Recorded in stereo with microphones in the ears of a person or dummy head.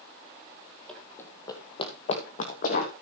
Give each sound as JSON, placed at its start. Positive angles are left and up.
{"t": 0.9, "sound": "running footsteps", "side_deg": 10, "distance_m": 2.5}